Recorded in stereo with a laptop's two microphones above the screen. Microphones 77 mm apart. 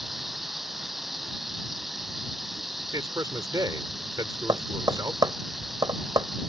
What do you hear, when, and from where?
0.0 s running water: 5° right (ahead or behind)
2.9 s a man speaking: 55° right (ahead or behind)
4.5 s tapping: 55° right (ahead or behind)